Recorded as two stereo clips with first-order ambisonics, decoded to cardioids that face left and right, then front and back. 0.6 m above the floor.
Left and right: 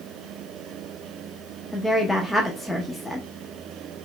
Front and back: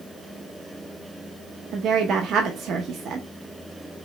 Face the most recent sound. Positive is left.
turn(degrees=170)